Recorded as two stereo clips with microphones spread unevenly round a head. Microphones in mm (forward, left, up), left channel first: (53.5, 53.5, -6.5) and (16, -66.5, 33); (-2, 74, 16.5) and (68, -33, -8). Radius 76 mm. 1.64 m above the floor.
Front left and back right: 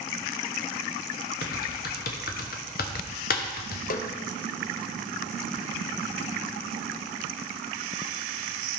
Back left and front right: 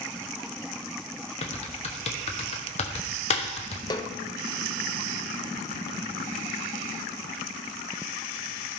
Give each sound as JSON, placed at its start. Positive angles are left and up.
{"t": 1.4, "sound": "typing on a keyboard", "azimuth_deg": 85, "distance_m": 1.1}
{"t": 3.9, "sound": "a snare drum", "azimuth_deg": 65, "distance_m": 0.9}